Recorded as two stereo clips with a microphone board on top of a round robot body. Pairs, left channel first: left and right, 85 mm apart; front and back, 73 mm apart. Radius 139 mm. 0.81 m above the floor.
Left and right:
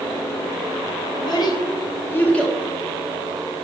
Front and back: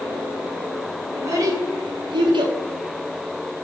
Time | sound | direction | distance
1.1 | a child speaking | 125° left | 2 m